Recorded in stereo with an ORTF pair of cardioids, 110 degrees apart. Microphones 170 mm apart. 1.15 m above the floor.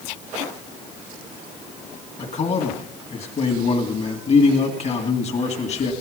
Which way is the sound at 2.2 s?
40° left.